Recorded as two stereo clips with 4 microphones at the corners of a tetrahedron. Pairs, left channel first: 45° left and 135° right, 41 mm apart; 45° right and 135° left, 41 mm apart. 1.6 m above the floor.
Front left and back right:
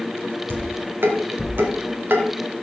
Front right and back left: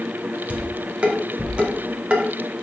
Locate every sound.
0.5 s dishes clattering: 170° right, 2 m